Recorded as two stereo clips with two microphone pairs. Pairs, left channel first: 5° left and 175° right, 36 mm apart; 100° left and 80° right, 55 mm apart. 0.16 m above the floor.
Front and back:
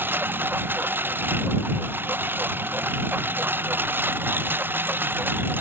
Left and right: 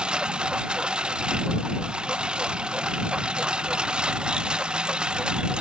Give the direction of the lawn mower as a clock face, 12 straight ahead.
5 o'clock.